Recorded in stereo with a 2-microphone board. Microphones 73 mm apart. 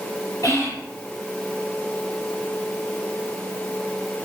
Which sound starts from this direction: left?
Whispering, at 0.4 s.